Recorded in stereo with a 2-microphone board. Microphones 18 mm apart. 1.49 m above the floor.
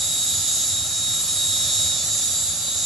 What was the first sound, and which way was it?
An insect, 35° left (ahead or behind).